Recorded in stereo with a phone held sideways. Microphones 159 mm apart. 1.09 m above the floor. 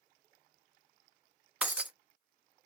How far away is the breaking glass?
About 0.5 m.